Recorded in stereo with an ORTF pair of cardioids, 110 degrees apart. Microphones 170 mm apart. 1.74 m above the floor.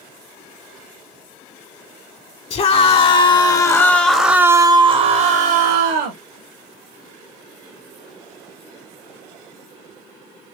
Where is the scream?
40° left, 1.6 m; by 6.2 s 80° right, 1.3 m.